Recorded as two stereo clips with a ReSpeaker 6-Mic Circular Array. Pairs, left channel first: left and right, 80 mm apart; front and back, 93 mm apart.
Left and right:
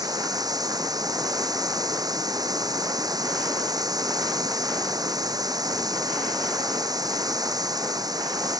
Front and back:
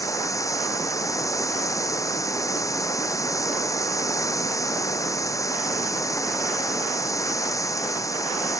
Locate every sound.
0.0 s running water: 55° right